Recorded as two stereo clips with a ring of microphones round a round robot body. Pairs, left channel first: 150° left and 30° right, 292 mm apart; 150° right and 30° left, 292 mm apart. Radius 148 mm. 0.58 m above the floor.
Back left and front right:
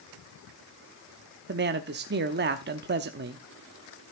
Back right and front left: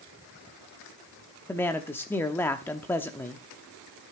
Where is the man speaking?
70° right, 0.8 m.